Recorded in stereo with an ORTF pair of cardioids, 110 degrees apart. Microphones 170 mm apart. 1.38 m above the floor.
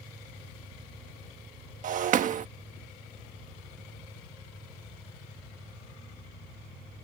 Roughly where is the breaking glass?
Ahead right.